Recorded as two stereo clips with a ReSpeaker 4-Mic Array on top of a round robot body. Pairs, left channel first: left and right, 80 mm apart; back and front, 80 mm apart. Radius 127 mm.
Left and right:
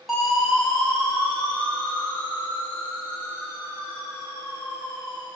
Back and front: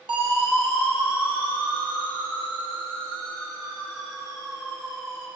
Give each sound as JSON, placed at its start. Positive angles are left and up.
{"t": 0.1, "sound": "a siren", "azimuth_deg": 0, "distance_m": 6.0}